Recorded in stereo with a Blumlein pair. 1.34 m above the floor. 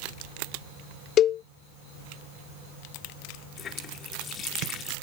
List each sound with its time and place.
1.2 s a cowbell: 30° left
3.6 s a running tap: 30° left